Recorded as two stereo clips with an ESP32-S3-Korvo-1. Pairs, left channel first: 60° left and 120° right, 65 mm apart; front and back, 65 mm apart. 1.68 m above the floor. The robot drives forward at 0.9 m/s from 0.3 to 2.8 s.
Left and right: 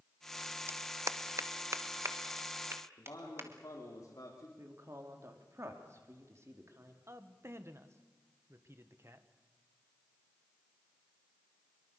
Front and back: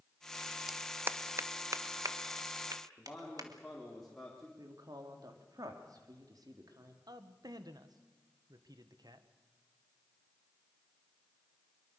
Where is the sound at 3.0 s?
85° left, 3.5 m.